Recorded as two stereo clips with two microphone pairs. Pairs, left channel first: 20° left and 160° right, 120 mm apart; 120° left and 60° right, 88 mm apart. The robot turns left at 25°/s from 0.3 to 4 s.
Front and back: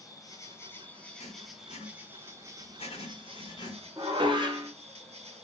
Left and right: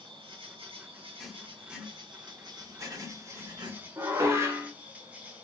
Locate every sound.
0.0 s an insect: 35° right, 0.8 m; by 5.4 s 130° right, 0.8 m
1.2 s writing: 35° left, 1.2 m; by 3.9 s 30° right, 1.2 m
4.0 s dishes clattering: 110° right, 0.8 m